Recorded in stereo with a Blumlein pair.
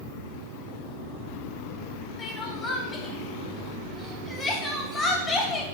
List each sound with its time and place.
2.2 s crying: 15° left, 2.5 m